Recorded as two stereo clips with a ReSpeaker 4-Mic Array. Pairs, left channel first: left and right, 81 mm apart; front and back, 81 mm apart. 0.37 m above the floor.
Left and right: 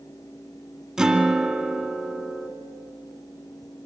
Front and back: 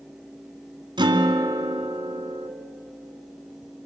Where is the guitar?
175° right, 2.5 m.